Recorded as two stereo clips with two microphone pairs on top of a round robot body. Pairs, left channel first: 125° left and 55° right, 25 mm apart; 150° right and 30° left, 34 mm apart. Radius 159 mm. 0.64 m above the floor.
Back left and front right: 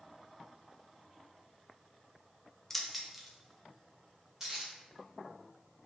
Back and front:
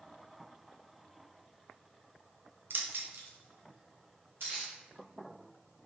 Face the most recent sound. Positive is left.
turn(degrees=20)